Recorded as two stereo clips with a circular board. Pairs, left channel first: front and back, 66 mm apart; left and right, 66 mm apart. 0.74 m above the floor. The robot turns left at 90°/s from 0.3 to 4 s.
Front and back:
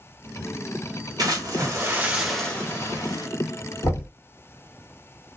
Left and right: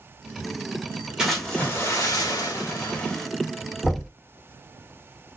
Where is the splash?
165° right, 1.4 m; by 3.3 s 5° left, 1.4 m.